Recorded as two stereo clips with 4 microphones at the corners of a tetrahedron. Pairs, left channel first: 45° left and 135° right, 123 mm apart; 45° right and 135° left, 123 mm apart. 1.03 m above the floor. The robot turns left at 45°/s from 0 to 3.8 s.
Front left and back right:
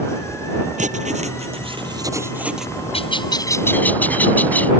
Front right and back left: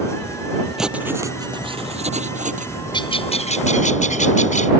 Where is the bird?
5° left; by 4.7 s 30° right.